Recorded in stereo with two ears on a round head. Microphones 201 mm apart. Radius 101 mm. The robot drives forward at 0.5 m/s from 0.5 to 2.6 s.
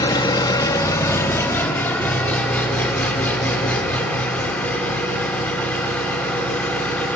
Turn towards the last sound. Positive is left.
turn(degrees=10)  # may be behind; listen again after turning